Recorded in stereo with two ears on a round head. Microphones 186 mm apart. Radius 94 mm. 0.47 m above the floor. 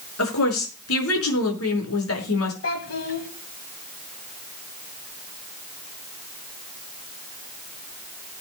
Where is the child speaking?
65° left (ahead or behind), 2 m.